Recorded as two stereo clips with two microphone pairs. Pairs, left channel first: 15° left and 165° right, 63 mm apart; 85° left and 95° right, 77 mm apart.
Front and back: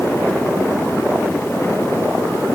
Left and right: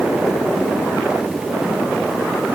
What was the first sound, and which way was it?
Only background noise.